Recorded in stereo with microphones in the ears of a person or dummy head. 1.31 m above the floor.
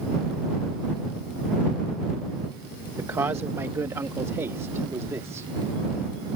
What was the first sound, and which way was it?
A man speaking, 15° right (ahead or behind).